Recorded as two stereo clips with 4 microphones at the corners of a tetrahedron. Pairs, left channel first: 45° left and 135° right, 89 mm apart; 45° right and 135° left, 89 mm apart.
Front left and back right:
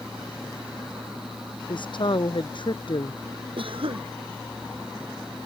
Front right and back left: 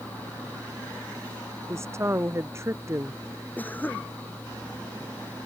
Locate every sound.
1.7 s a woman speaking: 75° left
3.6 s a cough: 115° right